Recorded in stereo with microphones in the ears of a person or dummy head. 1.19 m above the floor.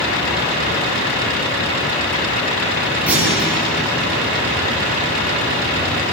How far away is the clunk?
About 9.5 m.